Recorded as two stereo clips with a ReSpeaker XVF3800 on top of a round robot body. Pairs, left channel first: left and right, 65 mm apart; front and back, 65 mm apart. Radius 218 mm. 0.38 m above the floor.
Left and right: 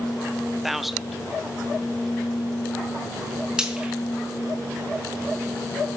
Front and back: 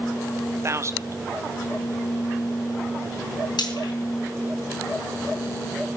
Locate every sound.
0.6 s a man speaking: 175° right, 1.2 m
3.6 s frying: 10° right, 4.5 m